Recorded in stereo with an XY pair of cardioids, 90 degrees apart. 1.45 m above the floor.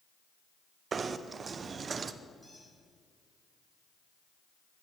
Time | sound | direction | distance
0.9 | knocking | 50° right | 0.5 m
2.4 | a squeak | 15° left | 4 m